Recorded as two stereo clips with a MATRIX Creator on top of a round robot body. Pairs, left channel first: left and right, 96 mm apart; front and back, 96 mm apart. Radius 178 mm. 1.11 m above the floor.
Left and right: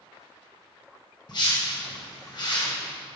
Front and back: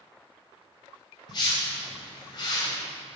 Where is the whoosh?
45° left, 2 m.